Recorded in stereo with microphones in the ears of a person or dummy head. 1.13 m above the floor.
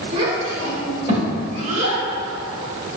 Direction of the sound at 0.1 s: 35° right (ahead or behind).